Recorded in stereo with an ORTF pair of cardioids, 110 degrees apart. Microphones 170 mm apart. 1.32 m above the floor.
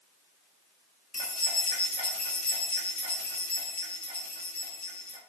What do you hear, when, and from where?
1.1 s keys jangling: 10° left, 1.7 m